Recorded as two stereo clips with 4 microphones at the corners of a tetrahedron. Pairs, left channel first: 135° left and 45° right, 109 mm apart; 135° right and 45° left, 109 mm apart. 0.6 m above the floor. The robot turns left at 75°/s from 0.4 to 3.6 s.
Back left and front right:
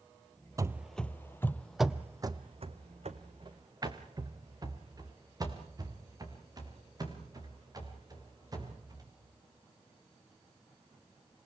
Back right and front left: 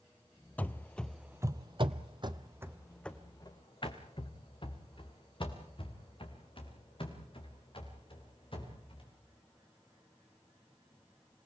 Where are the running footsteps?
75° right, 0.6 m; by 9.1 s 100° right, 6.5 m.